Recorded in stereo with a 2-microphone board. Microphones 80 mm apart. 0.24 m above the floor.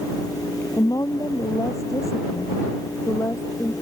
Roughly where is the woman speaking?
Left.